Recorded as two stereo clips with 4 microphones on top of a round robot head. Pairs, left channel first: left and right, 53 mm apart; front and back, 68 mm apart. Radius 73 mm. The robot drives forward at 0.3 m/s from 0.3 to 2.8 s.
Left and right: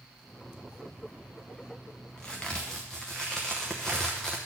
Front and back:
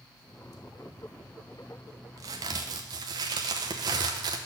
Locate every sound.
2.2 s a crack: 170° left, 0.6 m; by 4.4 s 175° left, 0.7 m